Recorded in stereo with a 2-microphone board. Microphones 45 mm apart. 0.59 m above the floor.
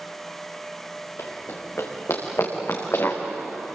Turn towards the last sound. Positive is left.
turn(degrees=70)  # may be behind; listen again after turning